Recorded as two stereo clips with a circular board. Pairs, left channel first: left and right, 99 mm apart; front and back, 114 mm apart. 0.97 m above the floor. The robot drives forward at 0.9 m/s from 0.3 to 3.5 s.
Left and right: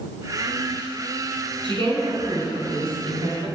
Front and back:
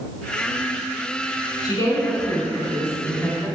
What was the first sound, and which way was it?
A woman speaking, 55° right.